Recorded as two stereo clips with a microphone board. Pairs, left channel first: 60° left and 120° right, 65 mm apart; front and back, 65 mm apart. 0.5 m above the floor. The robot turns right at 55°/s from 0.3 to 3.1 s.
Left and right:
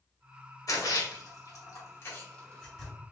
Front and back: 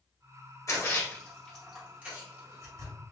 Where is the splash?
35° left, 1.9 m; by 2.9 s 160° left, 1.9 m.